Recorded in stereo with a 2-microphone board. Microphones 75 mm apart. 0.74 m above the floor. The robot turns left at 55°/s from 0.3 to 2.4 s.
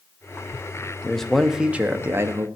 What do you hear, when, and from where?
1.0 s a man speaking: 15° left, 0.7 m; by 2.5 s 60° right, 0.7 m